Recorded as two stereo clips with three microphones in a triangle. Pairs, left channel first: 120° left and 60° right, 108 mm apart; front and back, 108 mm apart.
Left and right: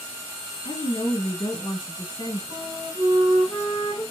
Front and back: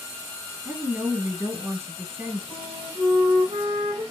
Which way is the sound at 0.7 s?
115° left.